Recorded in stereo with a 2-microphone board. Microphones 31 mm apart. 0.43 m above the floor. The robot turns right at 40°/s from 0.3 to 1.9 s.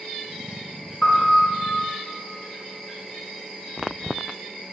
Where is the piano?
35° left (ahead or behind), 2.5 m; by 1.5 s 50° left (ahead or behind), 2.5 m.